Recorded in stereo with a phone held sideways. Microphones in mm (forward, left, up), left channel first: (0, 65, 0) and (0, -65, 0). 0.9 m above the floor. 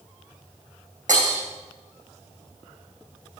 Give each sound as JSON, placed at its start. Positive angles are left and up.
{"t": 1.1, "sound": "breaking glass", "side_deg": -80, "distance_m": 4.5}